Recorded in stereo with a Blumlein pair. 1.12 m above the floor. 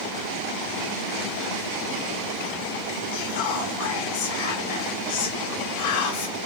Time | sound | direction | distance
3.1 | whispering | 50° left | 2.5 m